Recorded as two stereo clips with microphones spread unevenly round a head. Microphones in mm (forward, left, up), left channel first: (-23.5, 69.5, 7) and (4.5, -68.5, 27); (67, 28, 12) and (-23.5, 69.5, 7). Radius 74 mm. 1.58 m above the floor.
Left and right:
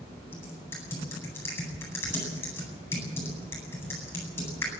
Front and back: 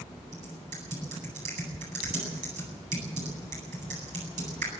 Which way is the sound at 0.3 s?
175° left.